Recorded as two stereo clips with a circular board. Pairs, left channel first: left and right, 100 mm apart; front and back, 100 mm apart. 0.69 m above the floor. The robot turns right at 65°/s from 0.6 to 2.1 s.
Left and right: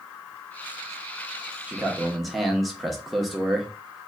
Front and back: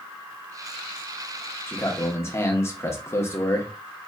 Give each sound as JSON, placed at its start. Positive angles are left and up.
{"t": 1.7, "sound": "a man speaking", "azimuth_deg": -30, "distance_m": 0.8}